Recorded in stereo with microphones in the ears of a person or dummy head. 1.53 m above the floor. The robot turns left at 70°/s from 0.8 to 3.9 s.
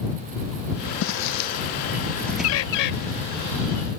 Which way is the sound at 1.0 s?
70° left (ahead or behind).